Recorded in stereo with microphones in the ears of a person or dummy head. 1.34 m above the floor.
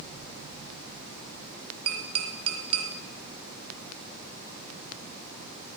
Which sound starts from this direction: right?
Tapping, at 1.9 s.